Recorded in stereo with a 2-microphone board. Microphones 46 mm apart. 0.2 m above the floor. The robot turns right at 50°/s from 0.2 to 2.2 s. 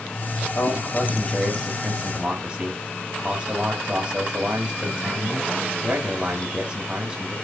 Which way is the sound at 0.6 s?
120° left.